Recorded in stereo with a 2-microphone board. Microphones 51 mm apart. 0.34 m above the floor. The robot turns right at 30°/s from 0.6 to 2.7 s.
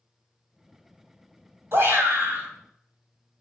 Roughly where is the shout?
Right.